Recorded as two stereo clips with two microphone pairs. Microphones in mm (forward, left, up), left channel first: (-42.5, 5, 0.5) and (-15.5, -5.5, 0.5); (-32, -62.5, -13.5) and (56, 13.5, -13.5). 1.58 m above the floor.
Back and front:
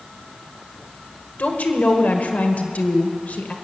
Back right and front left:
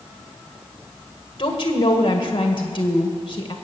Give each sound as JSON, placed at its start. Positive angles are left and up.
{"t": 1.4, "sound": "a woman speaking", "azimuth_deg": 175, "distance_m": 1.7}